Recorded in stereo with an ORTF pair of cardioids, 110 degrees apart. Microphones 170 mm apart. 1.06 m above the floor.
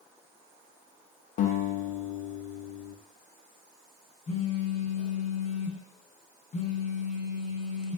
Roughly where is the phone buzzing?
Ahead left.